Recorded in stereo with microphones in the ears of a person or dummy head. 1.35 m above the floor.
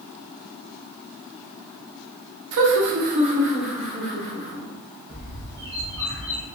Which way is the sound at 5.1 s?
15° left (ahead or behind).